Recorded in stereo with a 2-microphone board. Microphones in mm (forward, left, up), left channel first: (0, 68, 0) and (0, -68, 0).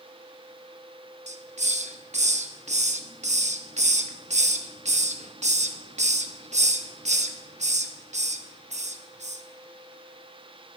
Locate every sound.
1.3 s a hiss: 65° right (ahead or behind), 0.7 m